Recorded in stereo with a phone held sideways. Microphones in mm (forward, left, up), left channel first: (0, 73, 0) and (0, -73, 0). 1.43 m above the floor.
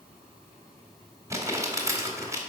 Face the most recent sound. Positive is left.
turn(degrees=-20)  # may be behind; listen again after turning